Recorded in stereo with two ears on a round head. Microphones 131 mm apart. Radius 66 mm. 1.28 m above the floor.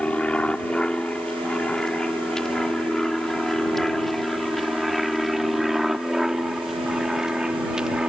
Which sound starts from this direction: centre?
An aircraft, at 0.0 s.